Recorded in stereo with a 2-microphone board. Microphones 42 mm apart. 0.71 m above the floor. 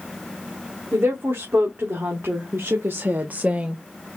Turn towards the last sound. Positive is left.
turn(degrees=-20)  # may be behind; listen again after turning